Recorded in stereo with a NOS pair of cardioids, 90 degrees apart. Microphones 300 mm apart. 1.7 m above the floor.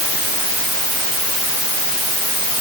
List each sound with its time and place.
Only background noise.